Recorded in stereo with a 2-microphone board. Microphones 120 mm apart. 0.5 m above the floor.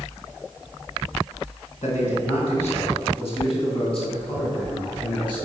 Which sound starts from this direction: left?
A man speaking, at 1.8 s.